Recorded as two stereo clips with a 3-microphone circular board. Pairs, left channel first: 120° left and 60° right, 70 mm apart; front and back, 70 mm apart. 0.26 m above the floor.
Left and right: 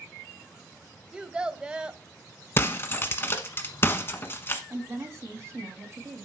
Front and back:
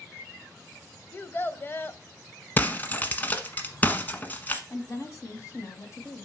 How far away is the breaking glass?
About 1.2 m.